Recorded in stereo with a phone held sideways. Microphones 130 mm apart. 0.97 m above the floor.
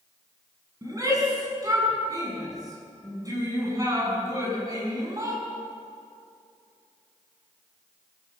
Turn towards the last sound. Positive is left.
turn(degrees=-25)  # may be behind; listen again after turning